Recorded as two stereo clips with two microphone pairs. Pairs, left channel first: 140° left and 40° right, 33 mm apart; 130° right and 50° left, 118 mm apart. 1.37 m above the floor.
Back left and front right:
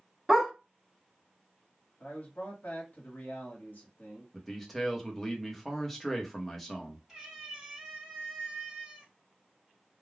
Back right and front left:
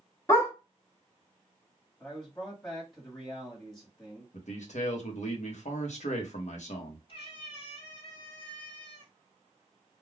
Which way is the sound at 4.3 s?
135° right.